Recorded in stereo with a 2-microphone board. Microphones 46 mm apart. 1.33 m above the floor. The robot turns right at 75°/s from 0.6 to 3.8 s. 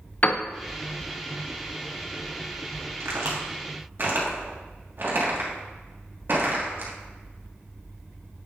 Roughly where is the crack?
Right.